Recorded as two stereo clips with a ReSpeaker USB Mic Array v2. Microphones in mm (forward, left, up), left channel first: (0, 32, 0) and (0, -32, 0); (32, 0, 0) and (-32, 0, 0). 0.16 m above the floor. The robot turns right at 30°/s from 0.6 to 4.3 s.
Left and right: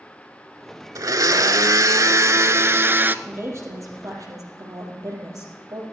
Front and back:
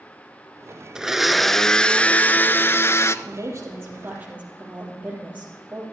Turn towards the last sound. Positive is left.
turn(degrees=-115)